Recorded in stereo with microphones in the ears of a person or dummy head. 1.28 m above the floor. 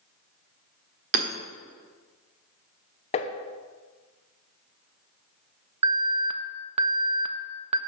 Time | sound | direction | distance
1.1 | hammering | 50° right (ahead or behind) | 1.2 m
3.1 | tapping | 30° left (ahead or behind) | 0.9 m
5.8 | an alarm | 30° right (ahead or behind) | 0.7 m